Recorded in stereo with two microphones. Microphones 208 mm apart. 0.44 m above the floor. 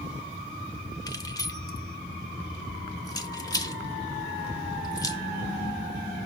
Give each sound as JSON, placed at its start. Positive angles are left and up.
{"t": 1.1, "sound": "keys jangling", "side_deg": 20, "distance_m": 1.0}